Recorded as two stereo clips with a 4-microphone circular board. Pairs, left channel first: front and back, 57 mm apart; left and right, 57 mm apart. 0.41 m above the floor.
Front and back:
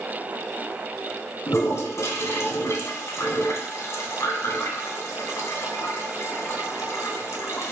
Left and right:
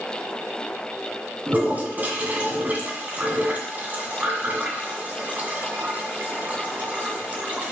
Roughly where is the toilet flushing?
Ahead right.